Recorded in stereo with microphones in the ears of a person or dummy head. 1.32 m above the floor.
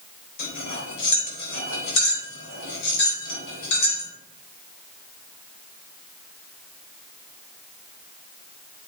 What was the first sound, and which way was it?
Cutlery clinking, 75° left (ahead or behind).